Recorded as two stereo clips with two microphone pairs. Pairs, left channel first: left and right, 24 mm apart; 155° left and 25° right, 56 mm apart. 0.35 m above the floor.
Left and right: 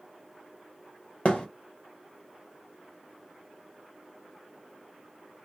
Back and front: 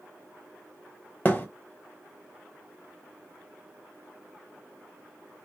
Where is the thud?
105° left, 0.8 m.